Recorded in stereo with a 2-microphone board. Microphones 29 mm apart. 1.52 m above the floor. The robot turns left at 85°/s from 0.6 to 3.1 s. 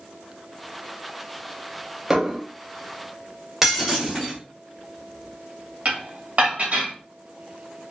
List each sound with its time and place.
2.1 s dishes clattering: 20° right (ahead or behind), 0.6 m; by 2.4 s 25° right (ahead or behind), 0.6 m
3.6 s breaking glass: 15° right (ahead or behind), 1.3 m
5.8 s dishes clattering: 50° right (ahead or behind), 1.3 m